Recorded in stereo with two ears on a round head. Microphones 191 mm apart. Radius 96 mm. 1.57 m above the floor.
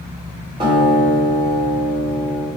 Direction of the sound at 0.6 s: 25° right (ahead or behind).